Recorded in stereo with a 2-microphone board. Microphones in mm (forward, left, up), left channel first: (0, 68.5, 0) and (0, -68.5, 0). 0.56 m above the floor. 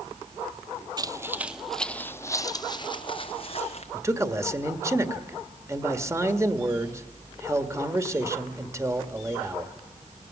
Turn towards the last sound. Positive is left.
turn(degrees=-20)  # may be behind; listen again after turning